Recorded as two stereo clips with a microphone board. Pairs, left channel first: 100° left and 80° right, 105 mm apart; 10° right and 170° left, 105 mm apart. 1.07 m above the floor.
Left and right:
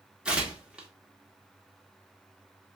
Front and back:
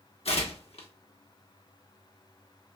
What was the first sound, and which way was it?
Tearing paper, 5° left.